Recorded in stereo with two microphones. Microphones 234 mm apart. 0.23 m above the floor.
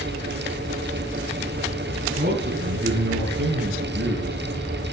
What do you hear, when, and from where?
2.2 s a man speaking: 45° right (ahead or behind), 2.5 m; by 4.4 s 65° right (ahead or behind), 4 m